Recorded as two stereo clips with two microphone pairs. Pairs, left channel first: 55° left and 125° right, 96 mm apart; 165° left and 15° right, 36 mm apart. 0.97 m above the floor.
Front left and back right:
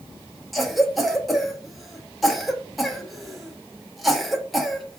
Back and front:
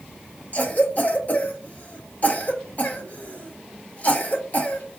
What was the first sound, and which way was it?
A cough, 140° left.